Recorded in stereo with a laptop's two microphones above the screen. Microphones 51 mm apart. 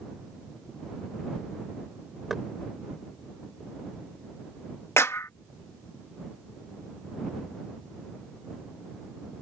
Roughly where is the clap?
Left.